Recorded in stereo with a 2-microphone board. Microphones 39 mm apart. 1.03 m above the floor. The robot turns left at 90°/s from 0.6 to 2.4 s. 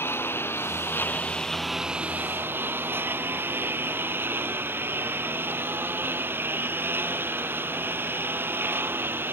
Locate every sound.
0.0 s a lawn mower: 100° left; by 9.3 s 65° right